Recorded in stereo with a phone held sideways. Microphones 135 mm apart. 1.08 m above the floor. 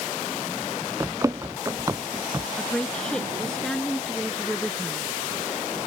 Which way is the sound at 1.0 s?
20° right (ahead or behind).